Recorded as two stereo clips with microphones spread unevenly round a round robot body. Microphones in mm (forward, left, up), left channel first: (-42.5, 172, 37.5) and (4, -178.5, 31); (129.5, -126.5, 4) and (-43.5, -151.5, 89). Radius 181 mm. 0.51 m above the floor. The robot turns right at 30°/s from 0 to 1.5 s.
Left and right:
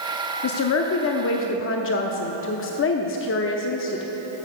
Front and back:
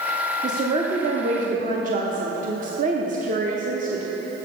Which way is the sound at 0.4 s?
95° left.